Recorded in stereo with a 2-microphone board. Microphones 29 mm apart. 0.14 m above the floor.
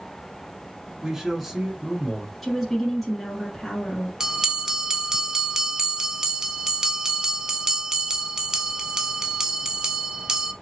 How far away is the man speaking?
About 1.3 m.